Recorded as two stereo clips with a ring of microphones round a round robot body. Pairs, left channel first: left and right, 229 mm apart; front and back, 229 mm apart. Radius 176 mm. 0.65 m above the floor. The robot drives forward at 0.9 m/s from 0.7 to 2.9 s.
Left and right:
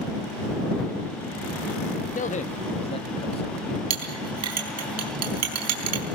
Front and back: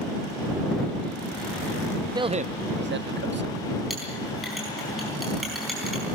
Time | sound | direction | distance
2.1 | a man speaking | 115° left | 0.9 m
3.9 | a clink | 90° right | 4 m